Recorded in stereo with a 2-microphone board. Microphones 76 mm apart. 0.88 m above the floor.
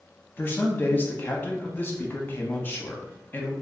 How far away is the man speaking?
About 0.8 m.